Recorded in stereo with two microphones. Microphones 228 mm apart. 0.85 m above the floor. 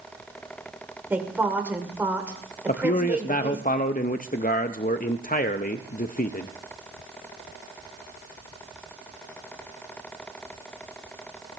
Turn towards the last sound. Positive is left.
turn(degrees=40)  # may be behind; listen again after turning